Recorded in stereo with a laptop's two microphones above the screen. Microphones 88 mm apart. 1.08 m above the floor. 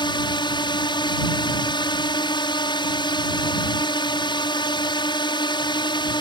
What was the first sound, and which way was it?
A drone, 60° left (ahead or behind).